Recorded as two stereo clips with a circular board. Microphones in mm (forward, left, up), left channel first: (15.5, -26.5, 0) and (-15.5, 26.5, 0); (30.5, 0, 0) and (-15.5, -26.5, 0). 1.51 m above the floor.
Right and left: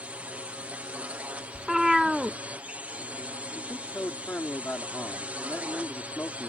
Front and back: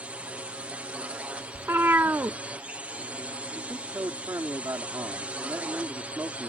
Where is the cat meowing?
160° right.